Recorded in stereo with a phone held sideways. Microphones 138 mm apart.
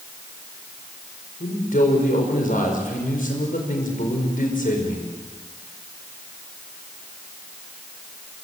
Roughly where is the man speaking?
Left.